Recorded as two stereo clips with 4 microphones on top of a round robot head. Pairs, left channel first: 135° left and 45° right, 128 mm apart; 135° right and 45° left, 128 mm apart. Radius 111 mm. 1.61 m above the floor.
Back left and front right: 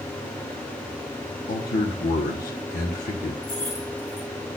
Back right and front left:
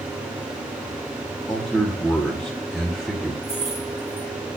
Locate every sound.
1.5 s a man speaking: 135° left, 1.1 m
3.4 s keys jangling: 130° left, 4.5 m